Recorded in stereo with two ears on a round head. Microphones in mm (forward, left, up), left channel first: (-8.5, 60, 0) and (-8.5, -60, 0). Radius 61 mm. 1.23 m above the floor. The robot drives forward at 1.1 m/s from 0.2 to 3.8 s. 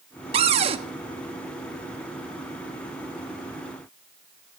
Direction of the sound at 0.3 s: 45° right (ahead or behind).